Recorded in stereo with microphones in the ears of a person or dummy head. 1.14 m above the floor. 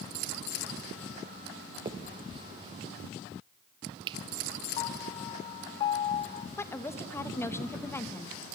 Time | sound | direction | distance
1.9 | a finger snap | 25° right (ahead or behind) | 0.7 m
4.8 | a piano | 30° left (ahead or behind) | 0.5 m
6.6 | a woman speaking | 15° left (ahead or behind) | 1.2 m